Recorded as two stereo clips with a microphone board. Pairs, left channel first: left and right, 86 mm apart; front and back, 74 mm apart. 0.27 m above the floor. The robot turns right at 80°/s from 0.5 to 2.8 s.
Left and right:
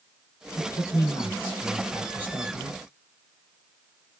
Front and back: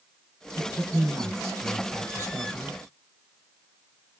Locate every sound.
0.6 s a man speaking: 70° left, 1.9 m; by 2.8 s 110° right, 1.9 m